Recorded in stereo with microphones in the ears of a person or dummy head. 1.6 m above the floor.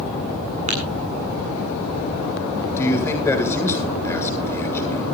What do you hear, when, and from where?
0.7 s tapping: 40° right (ahead or behind), 8.5 m
2.8 s a man speaking: 15° left (ahead or behind), 8 m